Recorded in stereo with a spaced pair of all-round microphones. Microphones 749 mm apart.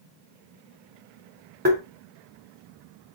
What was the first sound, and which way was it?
Tapping, 15° right (ahead or behind).